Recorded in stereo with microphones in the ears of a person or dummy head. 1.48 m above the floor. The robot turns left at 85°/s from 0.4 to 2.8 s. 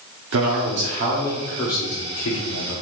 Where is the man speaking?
90° right, 0.9 m; by 2.8 s 65° left, 0.9 m.